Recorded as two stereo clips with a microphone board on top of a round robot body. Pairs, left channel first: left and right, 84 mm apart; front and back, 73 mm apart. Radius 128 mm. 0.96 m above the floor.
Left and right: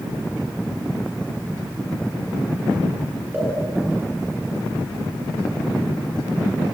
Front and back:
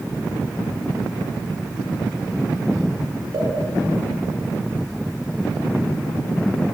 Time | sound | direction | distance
3.3 | a pop | 155° right | 8 m